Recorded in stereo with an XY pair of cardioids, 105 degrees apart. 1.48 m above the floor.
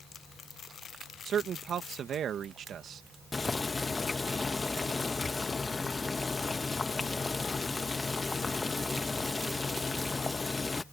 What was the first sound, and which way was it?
A man speaking, 55° right.